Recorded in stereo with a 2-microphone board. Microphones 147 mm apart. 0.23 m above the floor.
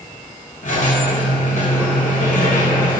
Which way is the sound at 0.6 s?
65° left (ahead or behind).